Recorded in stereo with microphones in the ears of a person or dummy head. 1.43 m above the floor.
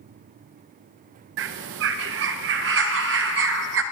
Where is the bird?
65° right (ahead or behind), 1.0 m.